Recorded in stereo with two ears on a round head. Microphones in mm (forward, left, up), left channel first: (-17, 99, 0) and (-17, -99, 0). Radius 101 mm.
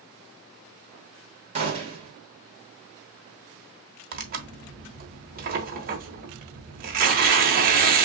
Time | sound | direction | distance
1.6 | a gunshot | 30° right (ahead or behind) | 1.6 m
4.1 | tearing paper | 45° right (ahead or behind) | 1.2 m